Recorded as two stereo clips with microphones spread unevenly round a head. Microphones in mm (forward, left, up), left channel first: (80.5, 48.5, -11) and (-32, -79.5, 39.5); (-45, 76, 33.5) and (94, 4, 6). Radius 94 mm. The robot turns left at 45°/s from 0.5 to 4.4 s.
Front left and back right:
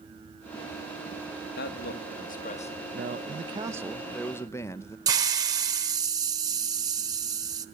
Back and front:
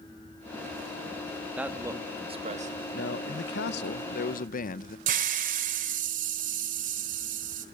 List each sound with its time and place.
1.6 s a man speaking: 55° left, 2.5 m; by 2.8 s straight ahead, 2.5 m
2.9 s a man speaking: 175° right, 0.9 m; by 5.0 s 120° left, 0.9 m
5.1 s a hiss: 80° right, 1.3 m